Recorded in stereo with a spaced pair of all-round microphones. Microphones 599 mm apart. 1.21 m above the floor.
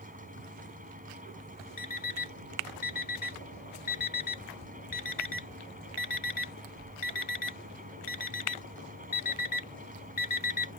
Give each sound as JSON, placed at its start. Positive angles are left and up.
{"t": 0.0, "sound": "a fan", "side_deg": -15}
{"t": 1.8, "sound": "an alarm clock", "side_deg": 60}